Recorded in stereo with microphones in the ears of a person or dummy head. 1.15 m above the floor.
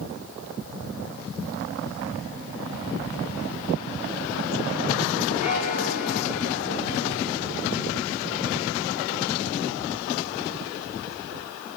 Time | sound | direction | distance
5.4 | a bell | 40° left (ahead or behind) | 3 m